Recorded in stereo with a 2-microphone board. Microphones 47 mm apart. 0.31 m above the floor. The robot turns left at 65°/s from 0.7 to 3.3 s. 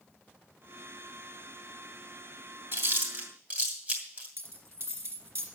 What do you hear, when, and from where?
2.7 s chewing: 50° right (ahead or behind), 2.5 m; by 4.3 s 25° right (ahead or behind), 2.5 m
4.4 s a dropped coin: 50° right (ahead or behind), 2.5 m